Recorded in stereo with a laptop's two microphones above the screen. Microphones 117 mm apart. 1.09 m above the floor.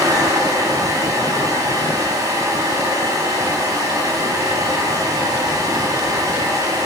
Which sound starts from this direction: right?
A fan, at 0.0 s.